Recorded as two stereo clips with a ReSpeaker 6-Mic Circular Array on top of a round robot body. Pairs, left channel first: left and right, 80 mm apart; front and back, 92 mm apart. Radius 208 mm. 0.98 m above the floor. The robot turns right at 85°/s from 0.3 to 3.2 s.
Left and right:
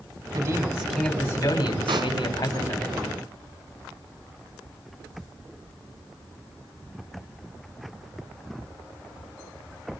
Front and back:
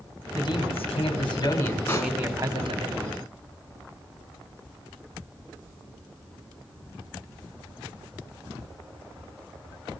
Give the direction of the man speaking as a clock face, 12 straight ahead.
2 o'clock.